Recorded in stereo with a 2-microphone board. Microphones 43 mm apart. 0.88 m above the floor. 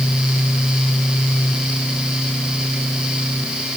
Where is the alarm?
No alarm in this recording.